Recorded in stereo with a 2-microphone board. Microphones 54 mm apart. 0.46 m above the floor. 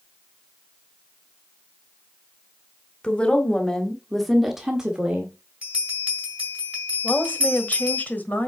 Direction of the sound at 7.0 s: 30° left (ahead or behind).